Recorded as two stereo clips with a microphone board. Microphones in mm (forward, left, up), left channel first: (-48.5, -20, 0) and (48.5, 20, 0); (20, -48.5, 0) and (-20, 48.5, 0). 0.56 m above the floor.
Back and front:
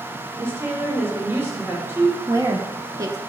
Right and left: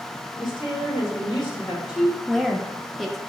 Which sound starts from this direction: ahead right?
A woman speaking, at 0.4 s.